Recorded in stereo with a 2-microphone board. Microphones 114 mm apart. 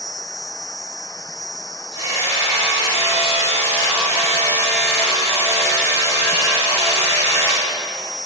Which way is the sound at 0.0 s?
35° left (ahead or behind).